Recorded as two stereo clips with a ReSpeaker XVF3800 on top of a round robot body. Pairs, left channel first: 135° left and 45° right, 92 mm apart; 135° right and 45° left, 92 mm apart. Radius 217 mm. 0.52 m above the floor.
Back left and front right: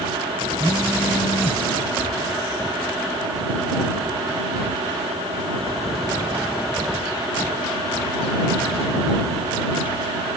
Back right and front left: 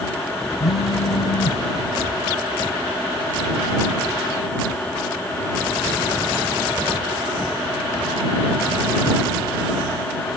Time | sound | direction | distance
0.6 | a phone buzzing | 140° right | ?